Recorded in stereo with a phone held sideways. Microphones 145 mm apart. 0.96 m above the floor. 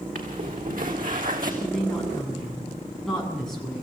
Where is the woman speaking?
5° left (ahead or behind), 8 m.